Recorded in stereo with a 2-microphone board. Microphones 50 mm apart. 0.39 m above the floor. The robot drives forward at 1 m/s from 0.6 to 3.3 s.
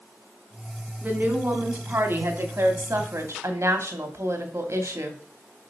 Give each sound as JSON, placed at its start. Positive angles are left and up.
{"t": 1.0, "sound": "a woman speaking", "side_deg": -35, "distance_m": 3.5}